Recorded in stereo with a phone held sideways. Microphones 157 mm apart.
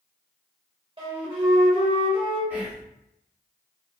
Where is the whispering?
10° right (ahead or behind), 1.0 m.